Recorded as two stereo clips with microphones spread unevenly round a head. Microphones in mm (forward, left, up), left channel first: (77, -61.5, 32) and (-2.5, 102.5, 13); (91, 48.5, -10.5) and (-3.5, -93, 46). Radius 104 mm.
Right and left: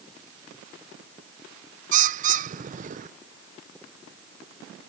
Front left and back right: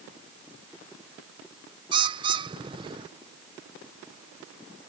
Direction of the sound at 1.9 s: 165° left.